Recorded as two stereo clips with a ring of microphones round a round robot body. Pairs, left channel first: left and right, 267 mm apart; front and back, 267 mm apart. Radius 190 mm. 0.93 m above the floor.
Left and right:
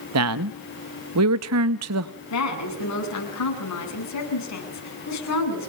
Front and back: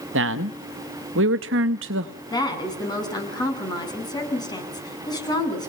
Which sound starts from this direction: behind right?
A man speaking, at 0.1 s.